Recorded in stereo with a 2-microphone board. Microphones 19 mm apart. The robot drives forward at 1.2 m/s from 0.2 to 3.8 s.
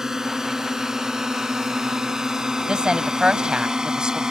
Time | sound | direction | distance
0.0 | a drone | 25° right (ahead or behind) | ?
2.7 | a woman speaking | 50° right (ahead or behind) | ?